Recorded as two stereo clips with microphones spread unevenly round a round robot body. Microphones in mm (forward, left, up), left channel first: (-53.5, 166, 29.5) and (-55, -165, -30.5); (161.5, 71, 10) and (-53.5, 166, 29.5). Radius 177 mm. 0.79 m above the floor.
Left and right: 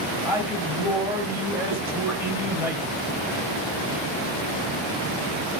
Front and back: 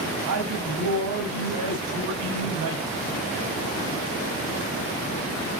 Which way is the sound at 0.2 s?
175° right.